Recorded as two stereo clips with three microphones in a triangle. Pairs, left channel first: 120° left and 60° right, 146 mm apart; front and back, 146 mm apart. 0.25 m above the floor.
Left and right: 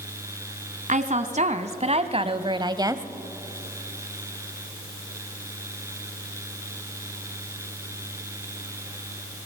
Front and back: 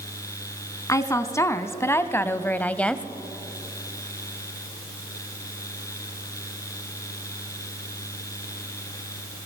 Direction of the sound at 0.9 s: 65° right.